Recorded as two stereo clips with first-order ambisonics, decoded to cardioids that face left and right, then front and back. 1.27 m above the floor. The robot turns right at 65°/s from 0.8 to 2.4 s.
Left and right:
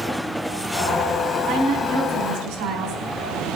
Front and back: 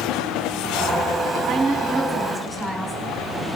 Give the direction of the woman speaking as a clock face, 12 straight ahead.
5 o'clock.